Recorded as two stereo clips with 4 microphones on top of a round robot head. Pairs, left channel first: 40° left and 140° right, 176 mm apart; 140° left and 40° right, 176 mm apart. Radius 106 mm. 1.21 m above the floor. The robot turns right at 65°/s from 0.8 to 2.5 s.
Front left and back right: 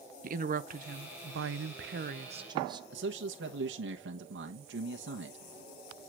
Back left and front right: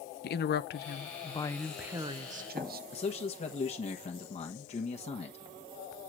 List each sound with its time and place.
0.2 s a woman speaking: 175° left, 0.8 m; by 2.8 s 75° right, 0.8 m
2.9 s a man speaking: 160° right, 1.3 m